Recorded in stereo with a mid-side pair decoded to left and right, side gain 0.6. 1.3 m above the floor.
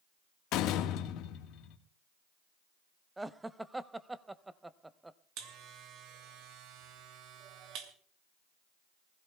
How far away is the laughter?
About 0.9 m.